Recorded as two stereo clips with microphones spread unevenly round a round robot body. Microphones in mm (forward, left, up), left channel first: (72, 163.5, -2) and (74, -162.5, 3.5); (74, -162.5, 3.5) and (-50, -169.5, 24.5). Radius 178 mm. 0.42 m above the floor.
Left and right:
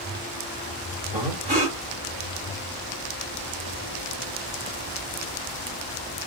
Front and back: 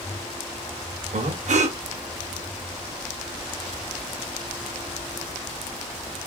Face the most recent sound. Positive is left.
turn(degrees=-160)